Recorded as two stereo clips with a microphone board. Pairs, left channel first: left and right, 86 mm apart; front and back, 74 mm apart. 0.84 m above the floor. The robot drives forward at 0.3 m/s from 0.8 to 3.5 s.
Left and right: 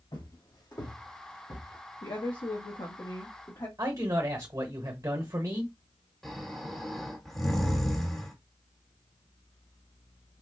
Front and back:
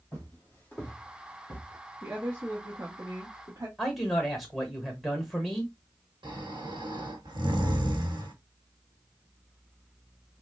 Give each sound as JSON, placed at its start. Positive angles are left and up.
{"t": 0.1, "sound": "footsteps", "azimuth_deg": 70, "distance_m": 1.8}
{"t": 2.0, "sound": "a woman speaking", "azimuth_deg": 115, "distance_m": 0.9}
{"t": 3.8, "sound": "a man speaking", "azimuth_deg": -95, "distance_m": 1.1}
{"t": 6.2, "sound": "snoring", "azimuth_deg": 180, "distance_m": 1.2}